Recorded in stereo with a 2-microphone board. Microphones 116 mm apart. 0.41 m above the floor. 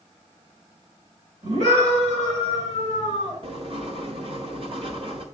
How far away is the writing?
About 1.3 m.